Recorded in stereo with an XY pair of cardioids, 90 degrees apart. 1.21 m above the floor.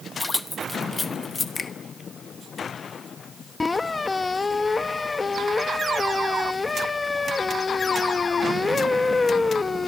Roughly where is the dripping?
No dripping in this recording.